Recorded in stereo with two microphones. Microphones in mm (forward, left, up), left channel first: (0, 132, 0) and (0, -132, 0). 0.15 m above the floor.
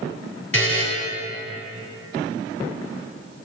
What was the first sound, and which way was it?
A buzzer, 50° left (ahead or behind).